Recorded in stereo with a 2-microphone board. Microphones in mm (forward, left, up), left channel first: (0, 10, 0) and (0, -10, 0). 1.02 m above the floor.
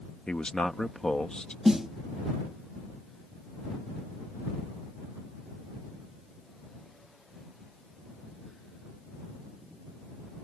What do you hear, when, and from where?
0.3 s a man speaking: 50° left (ahead or behind)
1.6 s a snare drum: 35° right (ahead or behind)